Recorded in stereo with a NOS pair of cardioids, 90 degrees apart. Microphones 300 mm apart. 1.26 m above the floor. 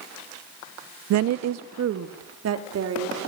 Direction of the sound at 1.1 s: 70° right.